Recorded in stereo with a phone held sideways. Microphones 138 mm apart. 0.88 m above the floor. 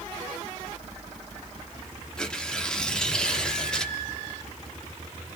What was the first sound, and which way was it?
Tearing paper, 5° left (ahead or behind).